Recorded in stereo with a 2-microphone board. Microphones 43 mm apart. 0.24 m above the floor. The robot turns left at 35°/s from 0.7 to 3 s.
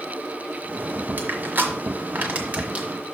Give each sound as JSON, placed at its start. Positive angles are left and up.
{"t": 1.2, "sound": "crushing", "side_deg": -45, "distance_m": 1.5}